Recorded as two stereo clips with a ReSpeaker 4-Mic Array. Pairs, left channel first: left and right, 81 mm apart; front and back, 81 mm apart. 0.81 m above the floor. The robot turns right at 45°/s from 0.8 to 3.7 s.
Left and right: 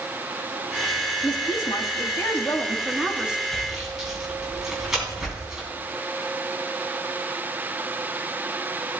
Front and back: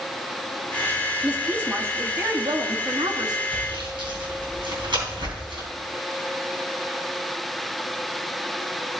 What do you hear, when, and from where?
1.2 s a woman speaking: 100° left, 1.7 m; by 3.4 s 165° right, 1.7 m
3.5 s sawing: 175° left, 3.5 m; by 5.7 s 175° right, 3.5 m